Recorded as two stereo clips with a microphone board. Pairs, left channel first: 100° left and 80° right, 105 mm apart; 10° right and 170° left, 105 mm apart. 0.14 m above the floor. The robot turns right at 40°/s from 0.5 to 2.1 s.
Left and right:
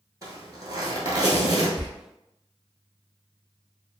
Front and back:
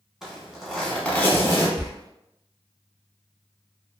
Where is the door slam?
95° right, 1.2 m; by 1.9 s 90° right, 1.2 m.